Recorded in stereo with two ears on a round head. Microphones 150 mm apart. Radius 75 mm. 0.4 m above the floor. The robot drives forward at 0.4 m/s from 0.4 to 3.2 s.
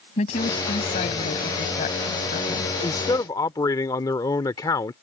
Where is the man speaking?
20° left (ahead or behind).